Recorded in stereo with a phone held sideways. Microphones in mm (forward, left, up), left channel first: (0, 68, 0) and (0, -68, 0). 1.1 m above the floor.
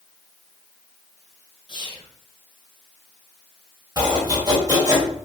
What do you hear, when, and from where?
1.7 s whispering: 40° left (ahead or behind), 1.0 m
4.0 s chopping: 30° right (ahead or behind), 1.1 m